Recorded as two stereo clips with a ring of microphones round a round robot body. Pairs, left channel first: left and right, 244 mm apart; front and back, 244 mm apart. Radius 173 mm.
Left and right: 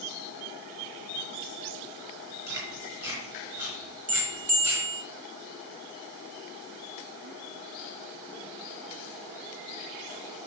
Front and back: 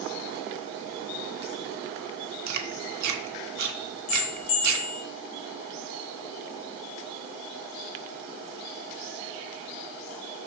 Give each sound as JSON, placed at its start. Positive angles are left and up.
{"t": 2.5, "sound": "chewing", "azimuth_deg": -170, "distance_m": 0.9}
{"t": 4.1, "sound": "a bell", "azimuth_deg": -35, "distance_m": 1.5}